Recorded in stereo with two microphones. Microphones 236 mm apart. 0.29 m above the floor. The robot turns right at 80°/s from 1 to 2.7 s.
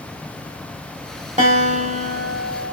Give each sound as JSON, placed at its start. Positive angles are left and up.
{"t": 1.4, "sound": "a guitar", "azimuth_deg": -75, "distance_m": 1.1}